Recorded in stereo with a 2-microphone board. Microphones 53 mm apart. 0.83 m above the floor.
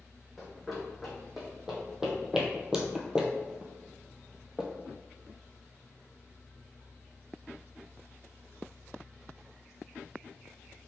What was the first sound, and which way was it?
Running footsteps, 5° right (ahead or behind).